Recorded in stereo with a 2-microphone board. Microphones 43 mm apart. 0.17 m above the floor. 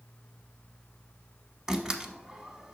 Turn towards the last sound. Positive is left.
turn(degrees=-15)  # may be behind; listen again after turning